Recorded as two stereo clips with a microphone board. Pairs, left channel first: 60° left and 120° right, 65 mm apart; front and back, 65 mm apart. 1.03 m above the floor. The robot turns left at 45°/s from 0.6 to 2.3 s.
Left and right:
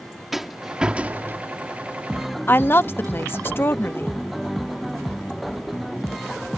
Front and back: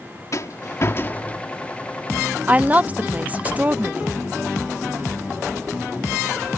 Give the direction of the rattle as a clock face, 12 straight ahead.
1 o'clock.